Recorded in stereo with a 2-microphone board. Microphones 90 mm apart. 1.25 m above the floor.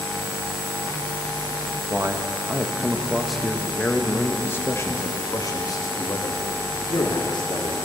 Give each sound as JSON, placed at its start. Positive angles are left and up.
{"t": 1.9, "sound": "a man speaking", "side_deg": -30, "distance_m": 2.0}